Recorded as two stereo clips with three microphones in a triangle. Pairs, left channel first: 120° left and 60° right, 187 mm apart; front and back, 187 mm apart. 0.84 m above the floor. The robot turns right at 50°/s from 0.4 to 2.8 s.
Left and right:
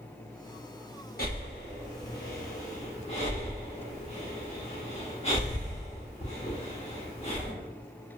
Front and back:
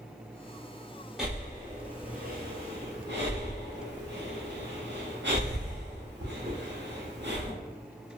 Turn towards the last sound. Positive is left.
turn(degrees=175)